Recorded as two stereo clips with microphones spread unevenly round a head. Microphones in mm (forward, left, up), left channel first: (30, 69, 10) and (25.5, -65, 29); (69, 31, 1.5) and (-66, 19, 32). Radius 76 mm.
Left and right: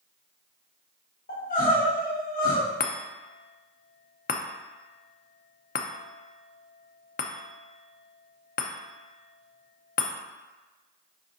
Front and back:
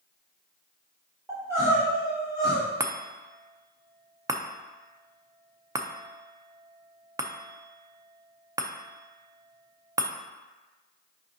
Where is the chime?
115° left, 0.6 m.